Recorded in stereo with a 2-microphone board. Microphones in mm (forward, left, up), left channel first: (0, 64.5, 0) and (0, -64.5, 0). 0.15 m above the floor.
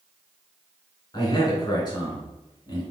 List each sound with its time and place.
1.1 s a man speaking: 35° left (ahead or behind), 1.6 m